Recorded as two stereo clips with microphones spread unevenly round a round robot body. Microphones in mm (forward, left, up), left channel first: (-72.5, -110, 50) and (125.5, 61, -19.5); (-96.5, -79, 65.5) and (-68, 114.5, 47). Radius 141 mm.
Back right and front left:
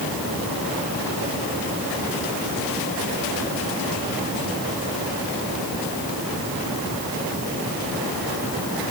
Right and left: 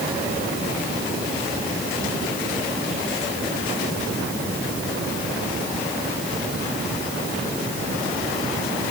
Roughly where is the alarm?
I don't hear an alarm.